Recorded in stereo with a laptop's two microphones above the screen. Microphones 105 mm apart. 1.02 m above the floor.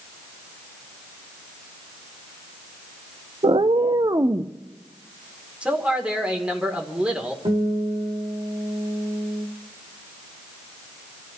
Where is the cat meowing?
60° right (ahead or behind), 0.5 m; by 4.5 s 30° right (ahead or behind), 0.8 m.